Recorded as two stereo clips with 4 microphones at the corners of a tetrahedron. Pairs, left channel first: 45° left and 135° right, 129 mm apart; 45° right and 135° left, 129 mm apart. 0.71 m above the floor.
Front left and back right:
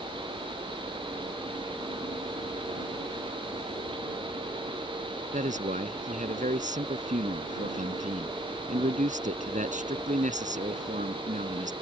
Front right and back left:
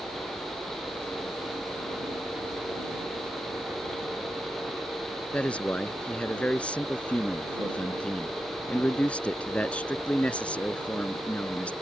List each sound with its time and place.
0.0 s a helicopter: 140° right; by 11.8 s 155° right
5.3 s a man speaking: 125° right